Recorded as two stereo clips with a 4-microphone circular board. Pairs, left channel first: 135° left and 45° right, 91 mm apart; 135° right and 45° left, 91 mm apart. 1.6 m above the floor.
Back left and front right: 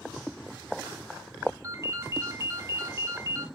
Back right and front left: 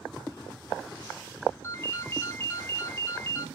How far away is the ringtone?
About 0.9 m.